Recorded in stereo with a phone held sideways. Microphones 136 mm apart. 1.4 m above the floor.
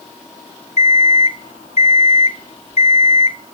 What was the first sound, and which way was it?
An alarm clock, 50° left (ahead or behind).